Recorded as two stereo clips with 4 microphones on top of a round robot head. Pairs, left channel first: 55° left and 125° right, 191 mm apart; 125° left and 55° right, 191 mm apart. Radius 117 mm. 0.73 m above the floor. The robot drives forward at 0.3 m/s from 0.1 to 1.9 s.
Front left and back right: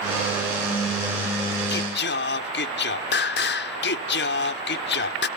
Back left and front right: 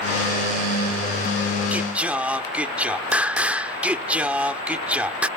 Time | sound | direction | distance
1.7 | singing | 25° left | ?